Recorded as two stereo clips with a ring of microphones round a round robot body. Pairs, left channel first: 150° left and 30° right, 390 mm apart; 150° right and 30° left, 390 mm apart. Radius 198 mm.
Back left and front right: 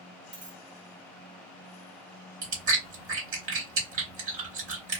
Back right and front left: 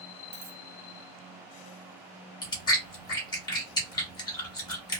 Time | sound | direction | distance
0.3 | a dropped coin | 30° left | 1.5 m
2.4 | chewing | 75° right | 1.2 m